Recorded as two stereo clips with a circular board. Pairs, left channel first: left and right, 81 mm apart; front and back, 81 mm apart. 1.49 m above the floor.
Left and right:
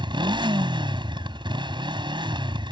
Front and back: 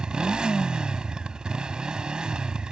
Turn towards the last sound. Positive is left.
turn(degrees=-100)